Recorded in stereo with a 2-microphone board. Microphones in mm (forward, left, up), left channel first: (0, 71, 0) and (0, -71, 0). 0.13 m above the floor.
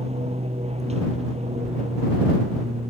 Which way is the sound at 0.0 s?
50° right (ahead or behind).